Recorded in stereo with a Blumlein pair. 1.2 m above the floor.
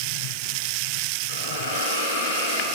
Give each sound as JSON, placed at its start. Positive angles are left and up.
{"t": 1.3, "sound": "a hiss", "azimuth_deg": 60, "distance_m": 9.5}